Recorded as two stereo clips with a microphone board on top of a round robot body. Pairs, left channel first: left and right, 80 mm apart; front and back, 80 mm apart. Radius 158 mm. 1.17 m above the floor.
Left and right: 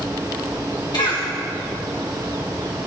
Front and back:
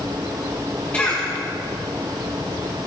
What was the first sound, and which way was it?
A cough, 70° left.